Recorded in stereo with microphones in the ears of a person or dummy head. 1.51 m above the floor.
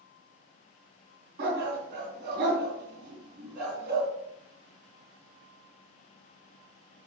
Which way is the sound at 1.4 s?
65° right (ahead or behind).